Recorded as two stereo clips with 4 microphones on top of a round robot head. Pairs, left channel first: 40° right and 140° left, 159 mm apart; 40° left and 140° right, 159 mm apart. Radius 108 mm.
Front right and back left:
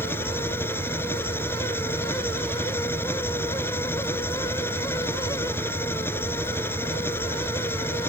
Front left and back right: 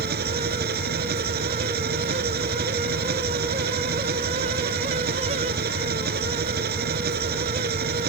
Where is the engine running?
115° right.